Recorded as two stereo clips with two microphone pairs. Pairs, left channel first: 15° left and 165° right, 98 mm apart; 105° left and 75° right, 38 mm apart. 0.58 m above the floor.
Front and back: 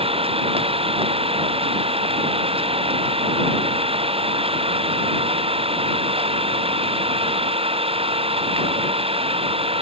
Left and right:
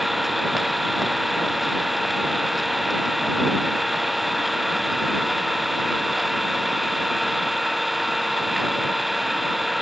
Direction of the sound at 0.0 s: 160° right.